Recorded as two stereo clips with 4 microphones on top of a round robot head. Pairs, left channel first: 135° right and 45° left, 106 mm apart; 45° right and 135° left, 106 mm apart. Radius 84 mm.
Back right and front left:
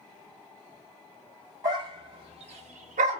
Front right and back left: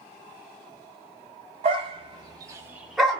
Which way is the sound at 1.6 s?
105° left.